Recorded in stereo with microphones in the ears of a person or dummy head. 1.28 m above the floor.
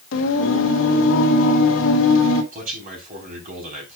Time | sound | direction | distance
0.1 | singing | 70° left (ahead or behind) | 1.6 m
2.5 | a man speaking | 45° right (ahead or behind) | 3.5 m